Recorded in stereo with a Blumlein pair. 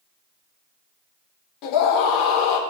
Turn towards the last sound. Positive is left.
turn(degrees=40)